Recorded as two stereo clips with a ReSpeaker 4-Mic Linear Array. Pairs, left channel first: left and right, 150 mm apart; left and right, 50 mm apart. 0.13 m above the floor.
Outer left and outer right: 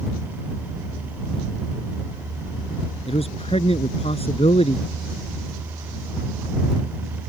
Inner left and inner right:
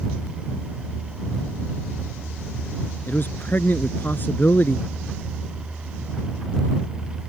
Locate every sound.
3.1 s a man speaking: 40° left (ahead or behind)